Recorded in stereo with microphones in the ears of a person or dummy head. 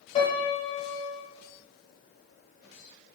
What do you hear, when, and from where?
0.1 s a piano: 35° left (ahead or behind), 4 m